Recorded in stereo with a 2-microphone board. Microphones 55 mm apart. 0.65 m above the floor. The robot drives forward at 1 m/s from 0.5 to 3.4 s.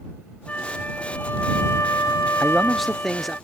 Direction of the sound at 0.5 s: 25° left (ahead or behind).